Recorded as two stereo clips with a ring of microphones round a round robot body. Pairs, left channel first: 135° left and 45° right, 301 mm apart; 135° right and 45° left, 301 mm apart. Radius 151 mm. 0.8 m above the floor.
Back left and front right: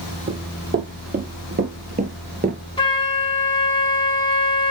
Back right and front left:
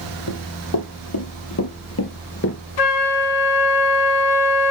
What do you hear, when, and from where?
0.3 s running footsteps: 105° right, 2.0 m; by 2.6 s 100° right, 0.9 m
2.8 s a flute: 150° right, 1.0 m